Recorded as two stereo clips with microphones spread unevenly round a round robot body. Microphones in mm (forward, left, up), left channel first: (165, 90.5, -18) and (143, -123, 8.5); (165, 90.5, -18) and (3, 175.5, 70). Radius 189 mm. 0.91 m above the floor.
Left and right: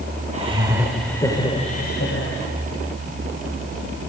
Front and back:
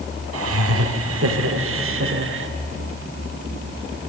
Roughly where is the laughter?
Behind.